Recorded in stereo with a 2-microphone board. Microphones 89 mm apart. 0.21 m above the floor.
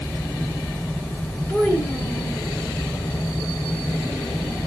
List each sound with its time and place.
1.5 s a child speaking: 15° left (ahead or behind), 1.3 m